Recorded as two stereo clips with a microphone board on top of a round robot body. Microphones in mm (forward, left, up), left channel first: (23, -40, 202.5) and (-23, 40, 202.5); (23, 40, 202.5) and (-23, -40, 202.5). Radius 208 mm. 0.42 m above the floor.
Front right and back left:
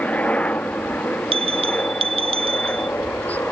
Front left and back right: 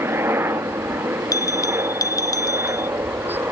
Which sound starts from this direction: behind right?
A helicopter, at 0.0 s.